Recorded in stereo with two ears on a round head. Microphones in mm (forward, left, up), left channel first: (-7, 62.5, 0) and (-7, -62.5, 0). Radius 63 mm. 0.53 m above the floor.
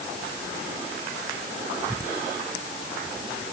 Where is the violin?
No violin in this recording.